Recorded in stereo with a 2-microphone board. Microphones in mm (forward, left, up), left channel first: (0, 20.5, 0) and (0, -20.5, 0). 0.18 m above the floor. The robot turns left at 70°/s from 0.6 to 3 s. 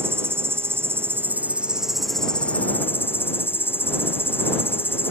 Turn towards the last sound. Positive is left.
turn(degrees=110)